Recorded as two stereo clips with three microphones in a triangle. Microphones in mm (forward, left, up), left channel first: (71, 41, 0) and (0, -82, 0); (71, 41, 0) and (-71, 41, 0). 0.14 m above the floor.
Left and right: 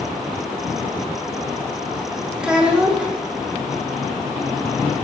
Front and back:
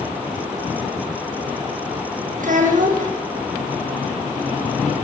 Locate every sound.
2.4 s a child speaking: 155° left, 5.5 m